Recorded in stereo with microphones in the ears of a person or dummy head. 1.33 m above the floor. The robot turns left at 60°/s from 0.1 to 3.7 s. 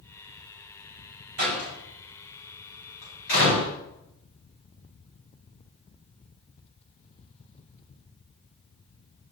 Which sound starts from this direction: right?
A door slam, at 1.4 s.